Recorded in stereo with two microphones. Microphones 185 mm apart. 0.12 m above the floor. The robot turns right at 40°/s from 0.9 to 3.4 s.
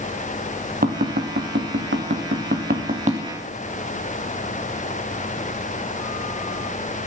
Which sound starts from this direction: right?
Tapping, at 0.8 s.